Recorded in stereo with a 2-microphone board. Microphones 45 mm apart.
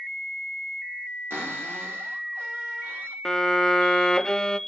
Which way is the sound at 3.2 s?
10° left (ahead or behind).